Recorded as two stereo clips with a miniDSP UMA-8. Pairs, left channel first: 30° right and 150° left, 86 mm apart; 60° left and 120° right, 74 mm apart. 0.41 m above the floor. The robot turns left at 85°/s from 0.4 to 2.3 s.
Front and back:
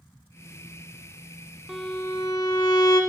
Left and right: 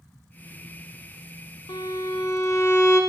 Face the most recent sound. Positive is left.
turn(degrees=10)